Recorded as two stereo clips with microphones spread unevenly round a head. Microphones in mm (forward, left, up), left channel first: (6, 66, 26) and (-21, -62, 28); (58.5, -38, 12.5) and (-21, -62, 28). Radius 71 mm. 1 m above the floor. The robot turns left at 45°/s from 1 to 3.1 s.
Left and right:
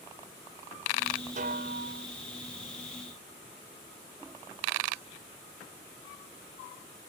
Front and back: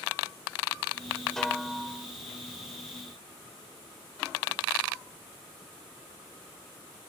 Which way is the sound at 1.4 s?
70° right.